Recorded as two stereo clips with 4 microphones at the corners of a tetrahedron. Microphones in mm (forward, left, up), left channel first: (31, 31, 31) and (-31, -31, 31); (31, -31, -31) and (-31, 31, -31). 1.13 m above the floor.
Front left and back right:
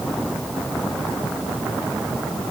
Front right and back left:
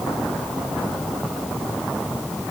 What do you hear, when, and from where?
Only background noise.